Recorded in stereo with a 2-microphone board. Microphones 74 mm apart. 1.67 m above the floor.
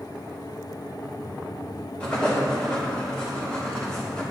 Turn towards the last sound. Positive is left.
turn(degrees=15)  # may be behind; listen again after turning